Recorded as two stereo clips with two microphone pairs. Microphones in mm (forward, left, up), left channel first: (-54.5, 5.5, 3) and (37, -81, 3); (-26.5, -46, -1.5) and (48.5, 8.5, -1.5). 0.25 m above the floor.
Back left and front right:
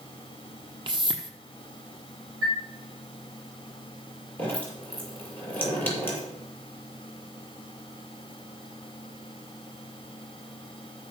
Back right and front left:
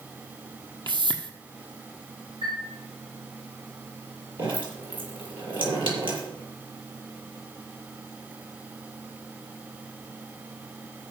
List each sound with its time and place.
0.9 s a whoosh: 5° left, 1.3 m
2.4 s a chime: 50° left, 8 m
4.4 s dripping: 60° left, 6 m